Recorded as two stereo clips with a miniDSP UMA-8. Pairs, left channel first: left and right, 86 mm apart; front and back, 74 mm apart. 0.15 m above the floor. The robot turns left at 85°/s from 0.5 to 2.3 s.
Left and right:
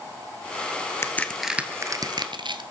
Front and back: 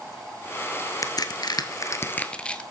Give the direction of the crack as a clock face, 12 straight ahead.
11 o'clock.